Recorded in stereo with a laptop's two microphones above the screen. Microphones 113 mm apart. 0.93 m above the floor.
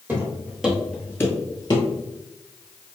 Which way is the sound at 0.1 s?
15° right (ahead or behind).